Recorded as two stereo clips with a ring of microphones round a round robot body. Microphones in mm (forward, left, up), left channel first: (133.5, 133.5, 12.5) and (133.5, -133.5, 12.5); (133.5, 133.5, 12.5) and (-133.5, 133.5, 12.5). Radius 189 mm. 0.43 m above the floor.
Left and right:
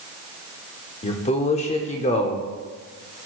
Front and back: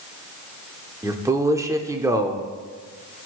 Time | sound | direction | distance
1.0 | a man speaking | 115° left | 0.8 m